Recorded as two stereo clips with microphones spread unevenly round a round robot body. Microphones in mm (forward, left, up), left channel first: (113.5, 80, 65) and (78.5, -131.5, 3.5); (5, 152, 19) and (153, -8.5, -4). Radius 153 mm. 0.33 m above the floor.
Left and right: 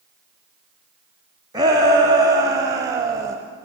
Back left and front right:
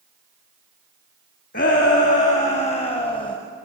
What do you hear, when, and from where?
1.5 s a shout: 165° right, 2.0 m; by 3.4 s 155° right, 1.2 m